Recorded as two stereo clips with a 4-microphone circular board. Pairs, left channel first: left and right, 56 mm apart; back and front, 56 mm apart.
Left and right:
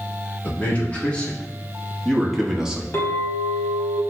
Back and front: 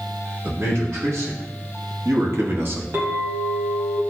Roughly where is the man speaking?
Ahead left.